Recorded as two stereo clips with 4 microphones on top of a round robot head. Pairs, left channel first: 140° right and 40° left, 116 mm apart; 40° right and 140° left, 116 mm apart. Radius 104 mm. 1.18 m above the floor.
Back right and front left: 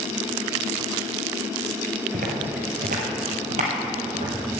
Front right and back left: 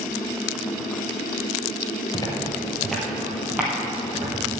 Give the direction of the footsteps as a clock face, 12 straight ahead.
11 o'clock.